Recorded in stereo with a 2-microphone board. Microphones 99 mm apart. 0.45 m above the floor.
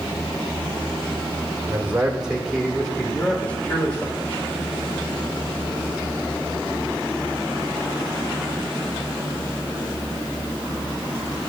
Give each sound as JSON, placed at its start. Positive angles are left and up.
{"t": 1.7, "sound": "a man speaking", "side_deg": -20, "distance_m": 1.4}